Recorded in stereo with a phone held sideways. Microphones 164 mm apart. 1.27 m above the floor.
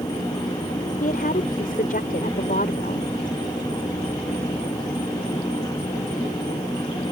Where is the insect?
20° left (ahead or behind).